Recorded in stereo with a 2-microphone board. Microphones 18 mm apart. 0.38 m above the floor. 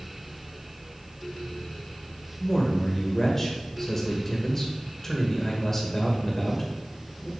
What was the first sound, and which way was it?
A man speaking, 20° left (ahead or behind).